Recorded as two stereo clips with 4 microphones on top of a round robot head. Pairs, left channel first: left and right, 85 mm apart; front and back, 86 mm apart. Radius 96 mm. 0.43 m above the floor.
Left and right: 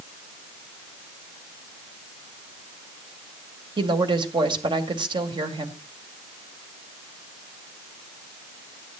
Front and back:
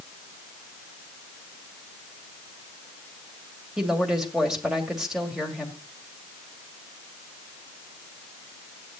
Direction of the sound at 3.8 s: 95° right.